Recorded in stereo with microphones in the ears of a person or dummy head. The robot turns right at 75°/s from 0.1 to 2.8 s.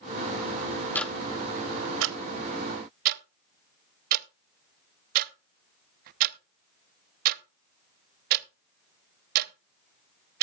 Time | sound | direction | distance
0.9 | ticking | 10° left (ahead or behind) | 0.6 m